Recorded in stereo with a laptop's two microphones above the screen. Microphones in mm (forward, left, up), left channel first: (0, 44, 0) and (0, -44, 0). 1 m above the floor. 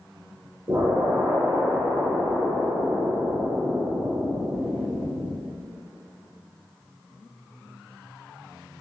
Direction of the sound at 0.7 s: 45° right (ahead or behind).